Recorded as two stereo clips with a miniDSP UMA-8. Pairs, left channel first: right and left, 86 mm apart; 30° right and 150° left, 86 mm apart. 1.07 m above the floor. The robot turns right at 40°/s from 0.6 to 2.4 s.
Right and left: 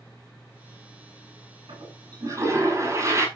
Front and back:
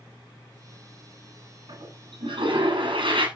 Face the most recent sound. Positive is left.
turn(degrees=145)